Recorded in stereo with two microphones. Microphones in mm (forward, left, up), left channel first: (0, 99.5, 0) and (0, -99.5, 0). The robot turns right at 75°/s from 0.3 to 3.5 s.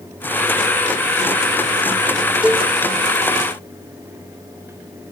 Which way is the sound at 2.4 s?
5° right (ahead or behind).